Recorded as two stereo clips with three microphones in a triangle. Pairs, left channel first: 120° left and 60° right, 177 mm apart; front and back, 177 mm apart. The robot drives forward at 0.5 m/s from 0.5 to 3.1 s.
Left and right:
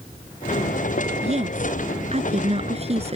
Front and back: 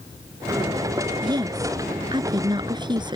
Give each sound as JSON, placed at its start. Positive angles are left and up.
{"t": 1.2, "sound": "a woman speaking", "azimuth_deg": -110}